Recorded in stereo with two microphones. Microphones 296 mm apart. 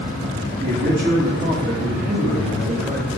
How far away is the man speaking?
About 2.5 m.